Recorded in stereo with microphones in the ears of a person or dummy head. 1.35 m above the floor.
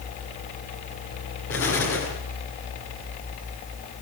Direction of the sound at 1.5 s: 65° left (ahead or behind).